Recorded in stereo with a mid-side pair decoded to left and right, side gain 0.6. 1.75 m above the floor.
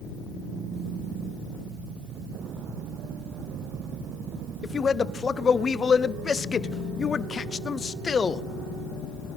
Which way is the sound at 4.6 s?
30° left.